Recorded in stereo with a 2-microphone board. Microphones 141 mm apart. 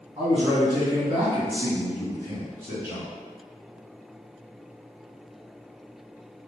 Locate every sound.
0.2 s a man speaking: 30° right (ahead or behind), 1.8 m; by 3.1 s 10° right (ahead or behind), 2.5 m